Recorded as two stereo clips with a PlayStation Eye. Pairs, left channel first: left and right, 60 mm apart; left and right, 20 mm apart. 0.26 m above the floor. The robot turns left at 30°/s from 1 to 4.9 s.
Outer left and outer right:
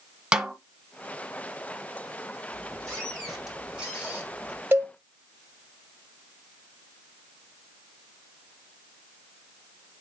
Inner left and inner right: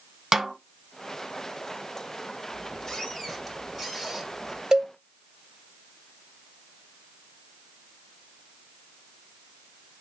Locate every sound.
0.3 s a snare drum: 15° right (ahead or behind), 1.2 m
2.5 s a squeak: 30° left, 3.5 m; by 4.6 s 35° right, 3.5 m
4.7 s a cowbell: 40° right (ahead or behind), 1.0 m; by 4.9 s 35° right (ahead or behind), 1.0 m